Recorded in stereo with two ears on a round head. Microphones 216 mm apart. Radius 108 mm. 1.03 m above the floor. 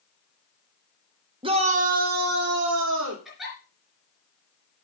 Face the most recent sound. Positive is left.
turn(degrees=0)  # may be behind; listen again after turning